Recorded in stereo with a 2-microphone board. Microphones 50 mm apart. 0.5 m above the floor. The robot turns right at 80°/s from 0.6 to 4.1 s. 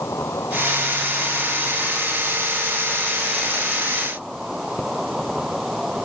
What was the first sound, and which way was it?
An insect, 70° left.